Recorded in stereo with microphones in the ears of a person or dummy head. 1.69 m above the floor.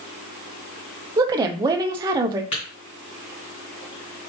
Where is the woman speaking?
20° right (ahead or behind), 0.6 m.